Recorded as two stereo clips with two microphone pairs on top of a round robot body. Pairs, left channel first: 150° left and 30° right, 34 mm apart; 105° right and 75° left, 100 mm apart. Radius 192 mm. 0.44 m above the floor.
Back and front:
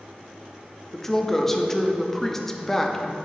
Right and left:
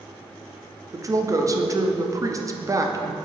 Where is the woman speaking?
75° left, 0.9 m.